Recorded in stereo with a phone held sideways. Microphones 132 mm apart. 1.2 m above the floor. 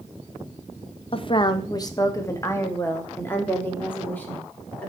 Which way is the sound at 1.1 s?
45° left (ahead or behind).